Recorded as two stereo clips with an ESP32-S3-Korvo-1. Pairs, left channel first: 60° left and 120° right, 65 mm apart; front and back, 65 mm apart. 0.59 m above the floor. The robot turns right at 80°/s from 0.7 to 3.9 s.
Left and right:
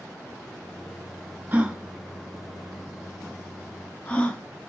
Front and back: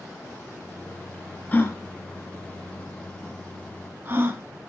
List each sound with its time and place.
1.5 s a gasp: 60° right, 0.9 m; by 4.4 s 130° left, 0.9 m